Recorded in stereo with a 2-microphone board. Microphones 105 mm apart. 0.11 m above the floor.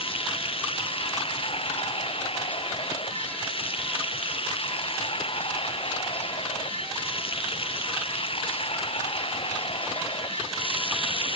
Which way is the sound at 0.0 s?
60° left (ahead or behind).